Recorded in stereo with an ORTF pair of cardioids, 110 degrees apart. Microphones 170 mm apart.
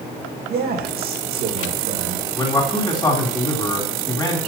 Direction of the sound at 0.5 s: 65° right.